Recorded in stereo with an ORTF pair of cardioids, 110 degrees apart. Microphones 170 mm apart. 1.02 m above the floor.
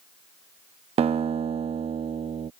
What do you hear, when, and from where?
1.0 s a guitar: 35° right